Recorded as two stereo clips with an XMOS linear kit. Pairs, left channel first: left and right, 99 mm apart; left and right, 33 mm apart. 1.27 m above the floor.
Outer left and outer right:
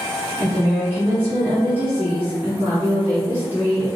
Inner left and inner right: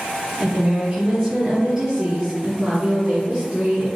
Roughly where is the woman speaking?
Centre.